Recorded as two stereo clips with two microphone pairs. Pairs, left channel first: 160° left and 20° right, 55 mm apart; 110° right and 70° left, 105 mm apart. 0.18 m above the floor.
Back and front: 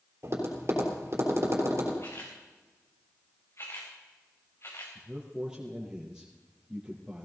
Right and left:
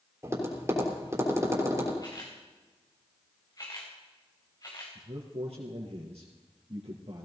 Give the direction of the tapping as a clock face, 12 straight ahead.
12 o'clock.